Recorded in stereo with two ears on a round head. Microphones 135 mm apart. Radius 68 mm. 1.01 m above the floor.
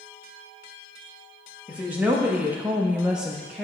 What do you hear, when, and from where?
1.7 s a woman speaking: 10° right (ahead or behind), 1.1 m; by 3.6 s centre (ahead or behind), 0.8 m